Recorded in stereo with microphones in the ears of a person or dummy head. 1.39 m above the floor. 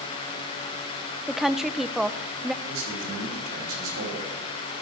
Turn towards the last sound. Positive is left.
turn(degrees=-80)